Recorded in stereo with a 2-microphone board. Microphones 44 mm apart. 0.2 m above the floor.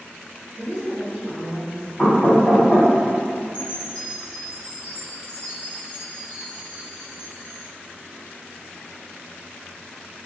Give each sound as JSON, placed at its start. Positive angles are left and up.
{"t": 0.6, "sound": "a woman speaking", "side_deg": -35, "distance_m": 1.5}
{"t": 2.0, "sound": "knocking", "side_deg": 5, "distance_m": 1.5}
{"t": 3.5, "sound": "a chime", "side_deg": 30, "distance_m": 0.9}